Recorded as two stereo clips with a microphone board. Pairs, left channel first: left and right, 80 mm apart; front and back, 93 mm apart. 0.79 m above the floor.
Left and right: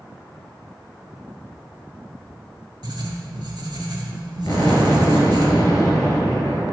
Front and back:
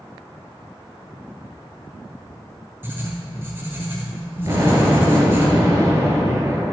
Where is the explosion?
130° left, 2.5 m.